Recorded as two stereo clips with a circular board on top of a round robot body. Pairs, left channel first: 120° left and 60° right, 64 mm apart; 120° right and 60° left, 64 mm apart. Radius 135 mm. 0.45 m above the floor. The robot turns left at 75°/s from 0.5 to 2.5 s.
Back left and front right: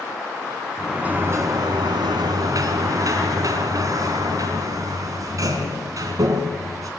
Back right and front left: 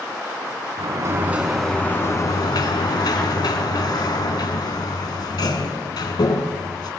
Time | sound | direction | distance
0.8 | a sliding door | 30° left | 3 m